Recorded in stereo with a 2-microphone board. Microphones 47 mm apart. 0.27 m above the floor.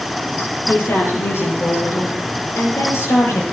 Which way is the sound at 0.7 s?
60° left (ahead or behind).